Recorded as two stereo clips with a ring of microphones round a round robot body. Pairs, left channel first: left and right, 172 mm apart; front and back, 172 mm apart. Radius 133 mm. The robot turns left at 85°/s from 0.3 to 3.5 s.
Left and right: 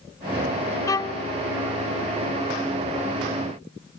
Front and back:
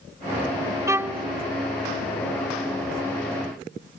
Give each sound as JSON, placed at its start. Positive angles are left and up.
{"t": 0.9, "sound": "a violin", "azimuth_deg": 130}